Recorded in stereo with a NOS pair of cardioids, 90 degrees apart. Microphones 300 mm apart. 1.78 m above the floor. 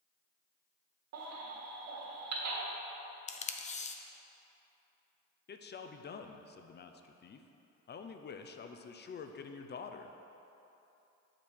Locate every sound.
1.1 s a baby crying: 65° right, 1.7 m
3.3 s tape being pulled: 25° left, 0.5 m
5.5 s a man speaking: 35° left, 0.6 m